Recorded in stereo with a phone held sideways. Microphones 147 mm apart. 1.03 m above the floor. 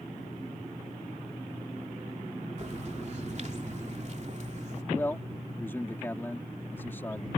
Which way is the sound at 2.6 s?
50° right (ahead or behind).